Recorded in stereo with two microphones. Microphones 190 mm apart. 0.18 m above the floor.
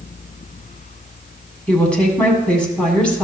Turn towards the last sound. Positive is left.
turn(degrees=5)  # may be behind; listen again after turning